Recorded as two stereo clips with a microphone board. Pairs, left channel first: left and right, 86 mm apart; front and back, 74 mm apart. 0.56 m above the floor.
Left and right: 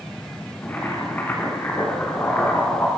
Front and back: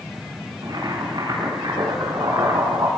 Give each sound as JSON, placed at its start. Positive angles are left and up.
{"t": 0.6, "sound": "boiling", "azimuth_deg": 160, "distance_m": 6.5}